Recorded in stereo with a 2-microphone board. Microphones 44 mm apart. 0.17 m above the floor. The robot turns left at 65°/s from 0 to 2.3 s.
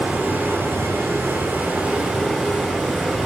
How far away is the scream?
I don't hear a scream.